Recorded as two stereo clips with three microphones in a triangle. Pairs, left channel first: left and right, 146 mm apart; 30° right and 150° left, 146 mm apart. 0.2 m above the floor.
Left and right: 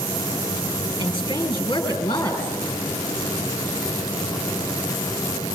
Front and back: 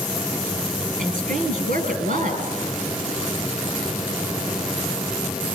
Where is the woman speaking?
145° left, 4 m.